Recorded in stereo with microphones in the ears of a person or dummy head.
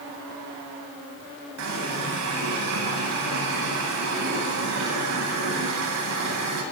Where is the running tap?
85° right, 9 m.